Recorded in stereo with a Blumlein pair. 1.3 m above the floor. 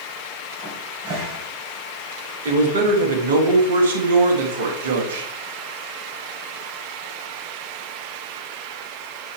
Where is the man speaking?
60° right, 1.7 m.